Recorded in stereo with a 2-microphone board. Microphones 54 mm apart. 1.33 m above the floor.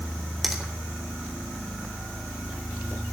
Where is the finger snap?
Centre (ahead or behind), 3 m.